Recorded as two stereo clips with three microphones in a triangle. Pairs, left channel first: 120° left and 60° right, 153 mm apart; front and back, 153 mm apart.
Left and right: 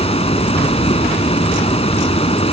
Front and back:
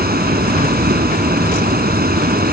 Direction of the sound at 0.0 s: 170° left.